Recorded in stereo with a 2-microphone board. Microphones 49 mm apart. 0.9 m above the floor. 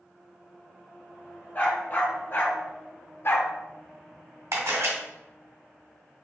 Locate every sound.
1.6 s a dog barking: 40° left (ahead or behind), 1.3 m; by 3.5 s 50° left (ahead or behind), 0.6 m
4.5 s a camera shutter: 70° right (ahead or behind), 1.7 m